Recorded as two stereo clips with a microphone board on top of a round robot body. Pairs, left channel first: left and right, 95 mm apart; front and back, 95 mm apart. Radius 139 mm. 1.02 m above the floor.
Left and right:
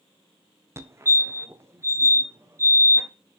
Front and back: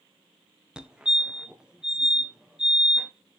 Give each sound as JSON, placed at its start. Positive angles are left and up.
{"t": 0.8, "sound": "a fire alarm", "azimuth_deg": -105, "distance_m": 1.7}